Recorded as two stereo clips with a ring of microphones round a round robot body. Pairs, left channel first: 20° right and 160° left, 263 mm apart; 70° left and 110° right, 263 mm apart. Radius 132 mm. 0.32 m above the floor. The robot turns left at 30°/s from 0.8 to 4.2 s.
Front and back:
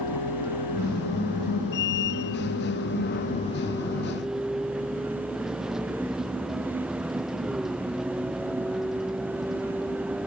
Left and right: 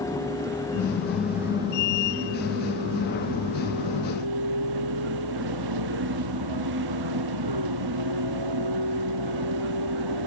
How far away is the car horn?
No car horn in this recording.